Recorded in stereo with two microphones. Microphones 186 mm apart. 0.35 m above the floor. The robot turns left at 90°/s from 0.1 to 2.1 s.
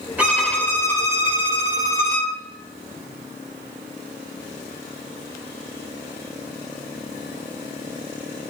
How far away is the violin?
About 1.6 m.